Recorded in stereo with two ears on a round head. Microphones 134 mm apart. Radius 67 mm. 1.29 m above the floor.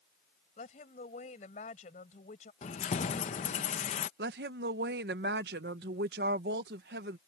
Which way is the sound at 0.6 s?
50° left (ahead or behind).